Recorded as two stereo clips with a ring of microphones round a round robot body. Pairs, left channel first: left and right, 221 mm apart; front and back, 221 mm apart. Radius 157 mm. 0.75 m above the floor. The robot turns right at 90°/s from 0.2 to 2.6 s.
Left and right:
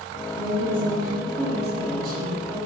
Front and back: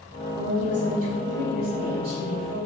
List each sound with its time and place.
0.4 s a woman speaking: 95° left, 3.5 m; by 2.6 s 65° right, 3.5 m